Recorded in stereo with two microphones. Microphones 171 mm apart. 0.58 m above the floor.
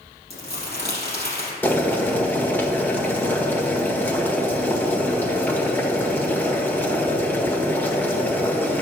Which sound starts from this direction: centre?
Boiling, at 1.6 s.